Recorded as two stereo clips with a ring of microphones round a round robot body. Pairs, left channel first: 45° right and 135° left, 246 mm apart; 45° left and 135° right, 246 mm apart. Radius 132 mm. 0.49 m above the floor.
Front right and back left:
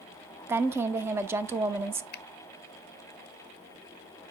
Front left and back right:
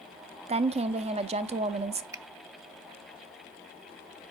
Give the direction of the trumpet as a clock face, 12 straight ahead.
I don't hear a trumpet.